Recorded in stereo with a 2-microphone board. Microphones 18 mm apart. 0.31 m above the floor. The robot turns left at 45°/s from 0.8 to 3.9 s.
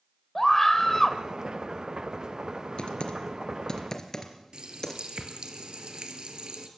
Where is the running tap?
60° right (ahead or behind), 3.5 m.